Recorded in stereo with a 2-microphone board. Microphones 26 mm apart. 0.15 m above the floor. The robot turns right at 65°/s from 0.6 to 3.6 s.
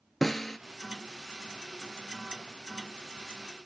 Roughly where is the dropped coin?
I don't hear a dropped coin.